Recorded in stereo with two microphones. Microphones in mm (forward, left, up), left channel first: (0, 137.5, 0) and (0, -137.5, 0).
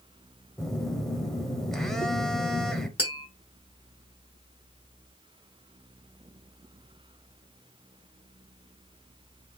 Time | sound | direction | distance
0.6 | a phone buzzing | centre (ahead or behind) | 0.6 m
3.0 | tapping | 20° left (ahead or behind) | 1.3 m